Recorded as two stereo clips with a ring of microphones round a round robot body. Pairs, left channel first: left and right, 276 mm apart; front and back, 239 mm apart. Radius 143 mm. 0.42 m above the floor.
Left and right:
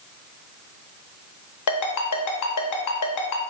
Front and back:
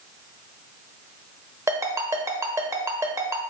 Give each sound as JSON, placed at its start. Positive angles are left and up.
{"t": 1.7, "sound": "a ringtone", "azimuth_deg": 100, "distance_m": 0.9}